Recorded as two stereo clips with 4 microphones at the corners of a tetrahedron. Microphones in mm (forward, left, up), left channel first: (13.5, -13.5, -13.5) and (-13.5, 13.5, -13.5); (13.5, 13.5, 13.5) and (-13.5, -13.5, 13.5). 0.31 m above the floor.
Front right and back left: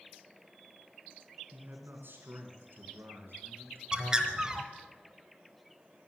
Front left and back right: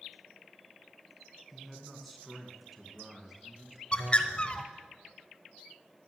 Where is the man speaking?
130° left, 2.5 m; by 3.8 s 145° left, 4 m.